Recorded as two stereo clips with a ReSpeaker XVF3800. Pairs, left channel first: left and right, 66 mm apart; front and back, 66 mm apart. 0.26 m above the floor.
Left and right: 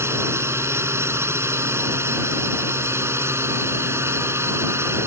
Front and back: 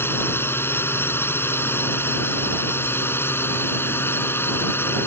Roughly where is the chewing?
No chewing in this recording.